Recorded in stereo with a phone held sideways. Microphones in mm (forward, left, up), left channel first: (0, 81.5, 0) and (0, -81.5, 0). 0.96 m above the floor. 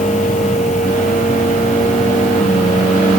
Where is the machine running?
50° left (ahead or behind).